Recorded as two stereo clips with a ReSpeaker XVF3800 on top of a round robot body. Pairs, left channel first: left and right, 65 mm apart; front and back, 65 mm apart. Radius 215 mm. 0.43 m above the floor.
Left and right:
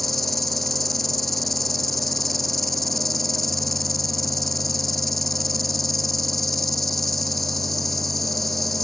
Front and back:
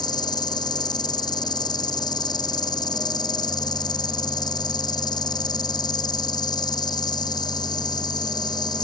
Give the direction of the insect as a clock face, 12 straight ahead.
12 o'clock.